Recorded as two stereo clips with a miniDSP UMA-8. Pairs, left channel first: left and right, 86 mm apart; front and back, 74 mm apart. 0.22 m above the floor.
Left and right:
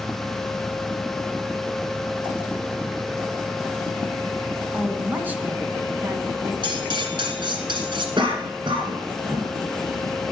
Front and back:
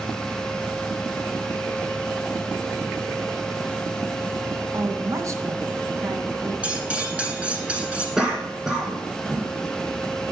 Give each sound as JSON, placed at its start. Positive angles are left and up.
{"t": 4.7, "sound": "a woman speaking", "azimuth_deg": -155, "distance_m": 1.5}
{"t": 6.6, "sound": "cutlery clinking", "azimuth_deg": -105, "distance_m": 1.5}
{"t": 8.2, "sound": "a cough", "azimuth_deg": -95, "distance_m": 2.0}